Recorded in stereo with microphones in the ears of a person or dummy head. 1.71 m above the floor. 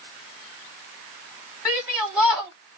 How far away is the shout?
About 1.2 m.